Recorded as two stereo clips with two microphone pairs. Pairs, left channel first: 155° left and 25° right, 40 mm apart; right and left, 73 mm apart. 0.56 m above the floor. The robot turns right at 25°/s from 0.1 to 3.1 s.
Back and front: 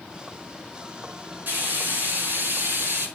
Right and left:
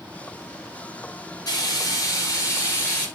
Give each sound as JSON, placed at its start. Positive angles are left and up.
{"t": 1.5, "sound": "frying", "azimuth_deg": -60, "distance_m": 8.5}